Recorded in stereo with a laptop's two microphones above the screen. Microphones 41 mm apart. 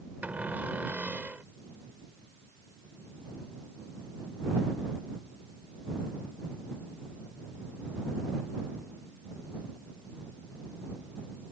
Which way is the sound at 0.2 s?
50° right (ahead or behind).